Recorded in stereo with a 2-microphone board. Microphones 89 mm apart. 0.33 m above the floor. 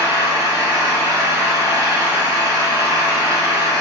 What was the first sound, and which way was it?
An engine running, 35° right (ahead or behind).